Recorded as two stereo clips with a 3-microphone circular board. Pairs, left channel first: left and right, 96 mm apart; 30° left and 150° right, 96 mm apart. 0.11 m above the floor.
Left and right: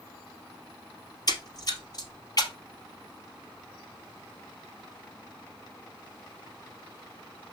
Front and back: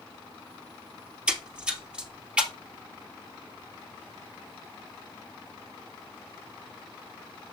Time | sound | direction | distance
1.3 | a splash | 130° left | 1.4 m